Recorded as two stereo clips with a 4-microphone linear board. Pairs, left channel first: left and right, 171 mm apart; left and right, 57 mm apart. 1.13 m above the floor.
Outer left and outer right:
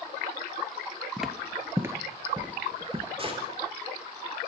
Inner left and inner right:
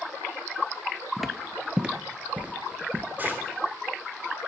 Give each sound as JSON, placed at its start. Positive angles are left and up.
{"t": 1.2, "sound": "footsteps", "side_deg": 0, "distance_m": 1.4}
{"t": 3.2, "sound": "a gunshot", "side_deg": -35, "distance_m": 3.0}